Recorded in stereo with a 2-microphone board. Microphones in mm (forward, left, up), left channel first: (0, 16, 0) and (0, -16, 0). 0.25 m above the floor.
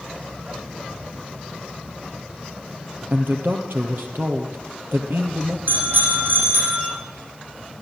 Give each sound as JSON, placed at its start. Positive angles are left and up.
{"t": 3.1, "sound": "a man speaking", "side_deg": -80, "distance_m": 5.5}
{"t": 5.7, "sound": "a bicycle bell", "side_deg": -65, "distance_m": 7.5}